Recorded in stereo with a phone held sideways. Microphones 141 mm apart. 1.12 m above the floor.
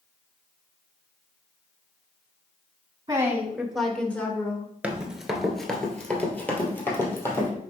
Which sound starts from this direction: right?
A woman speaking, at 3.1 s.